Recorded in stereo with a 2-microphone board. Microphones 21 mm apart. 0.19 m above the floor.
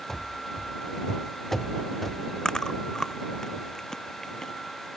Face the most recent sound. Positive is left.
turn(degrees=25)  # may be behind; listen again after turning